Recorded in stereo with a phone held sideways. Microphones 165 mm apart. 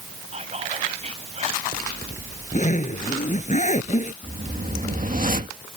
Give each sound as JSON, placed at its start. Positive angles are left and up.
{"t": 0.3, "sound": "whispering", "side_deg": -45}
{"t": 1.7, "sound": "a zipper", "side_deg": 50}
{"t": 4.2, "sound": "a whoosh", "side_deg": -55}